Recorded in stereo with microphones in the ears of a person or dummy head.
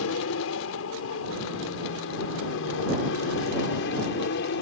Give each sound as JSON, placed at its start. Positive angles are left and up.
{"t": 0.0, "sound": "an aircraft", "side_deg": 75}